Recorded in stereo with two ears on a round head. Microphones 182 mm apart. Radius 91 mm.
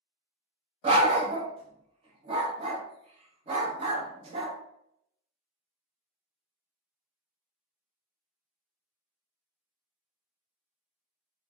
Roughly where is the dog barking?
Right.